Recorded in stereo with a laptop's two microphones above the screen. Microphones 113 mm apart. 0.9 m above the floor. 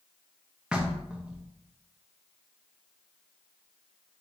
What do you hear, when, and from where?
0.7 s knocking: 10° right (ahead or behind), 0.6 m